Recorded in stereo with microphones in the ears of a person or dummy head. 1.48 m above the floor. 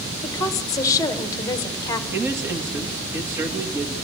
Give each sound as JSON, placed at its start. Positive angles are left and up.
{"t": 0.2, "sound": "a woman speaking", "side_deg": 15, "distance_m": 1.4}
{"t": 2.1, "sound": "a man speaking", "side_deg": -20, "distance_m": 2.0}